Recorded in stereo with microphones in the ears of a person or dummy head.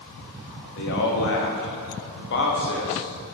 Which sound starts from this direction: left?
A man speaking, at 0.7 s.